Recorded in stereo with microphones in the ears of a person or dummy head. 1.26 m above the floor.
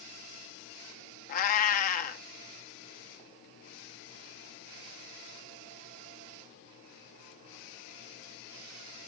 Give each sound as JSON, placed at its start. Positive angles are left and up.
{"t": 1.3, "sound": "a cat meowing", "side_deg": 55, "distance_m": 1.0}